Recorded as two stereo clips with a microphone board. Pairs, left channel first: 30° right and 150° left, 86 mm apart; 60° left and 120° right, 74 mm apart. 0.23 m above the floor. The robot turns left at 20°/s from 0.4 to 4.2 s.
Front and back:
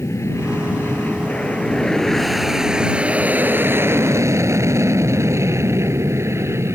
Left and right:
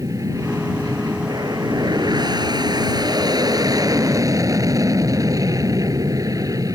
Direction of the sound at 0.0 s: 85° right.